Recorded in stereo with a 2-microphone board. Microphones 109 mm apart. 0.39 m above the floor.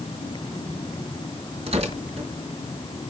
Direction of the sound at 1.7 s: 60° right (ahead or behind).